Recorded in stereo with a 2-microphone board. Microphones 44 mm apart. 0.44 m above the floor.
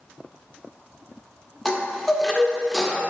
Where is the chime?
5° left (ahead or behind), 0.5 m.